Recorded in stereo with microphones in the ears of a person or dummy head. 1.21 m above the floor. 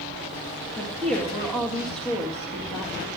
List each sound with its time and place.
0.8 s a woman speaking: 10° left (ahead or behind), 1.9 m